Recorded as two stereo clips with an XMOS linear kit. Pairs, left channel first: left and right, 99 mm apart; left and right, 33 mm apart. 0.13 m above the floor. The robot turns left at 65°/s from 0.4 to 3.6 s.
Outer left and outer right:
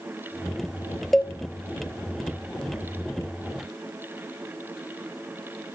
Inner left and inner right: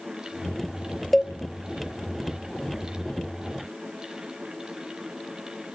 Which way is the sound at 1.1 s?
Centre (ahead or behind).